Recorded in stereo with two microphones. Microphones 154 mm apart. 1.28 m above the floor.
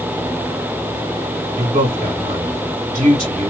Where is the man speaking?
65° right (ahead or behind), 1.8 m.